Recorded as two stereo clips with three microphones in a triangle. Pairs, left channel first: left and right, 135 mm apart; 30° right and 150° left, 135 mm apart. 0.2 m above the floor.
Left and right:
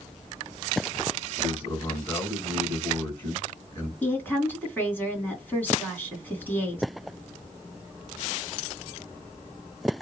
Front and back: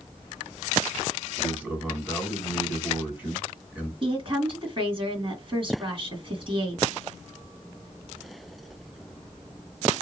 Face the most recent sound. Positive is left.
turn(degrees=155)